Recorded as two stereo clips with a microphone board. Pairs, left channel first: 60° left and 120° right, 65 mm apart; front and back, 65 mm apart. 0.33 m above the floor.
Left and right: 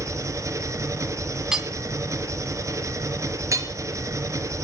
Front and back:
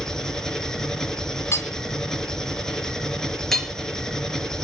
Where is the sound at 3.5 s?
85° right, 3 m.